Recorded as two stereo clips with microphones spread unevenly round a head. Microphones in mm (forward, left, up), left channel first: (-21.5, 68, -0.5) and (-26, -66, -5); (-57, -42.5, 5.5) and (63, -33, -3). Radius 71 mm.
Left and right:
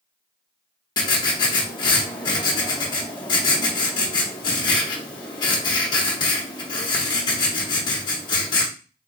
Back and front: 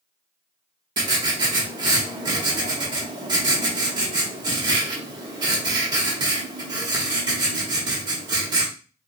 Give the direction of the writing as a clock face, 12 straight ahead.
10 o'clock.